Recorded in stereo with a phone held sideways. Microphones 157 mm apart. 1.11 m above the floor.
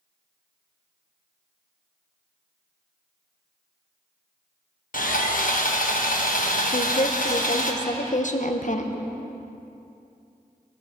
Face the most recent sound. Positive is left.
turn(degrees=55)  # may be behind; listen again after turning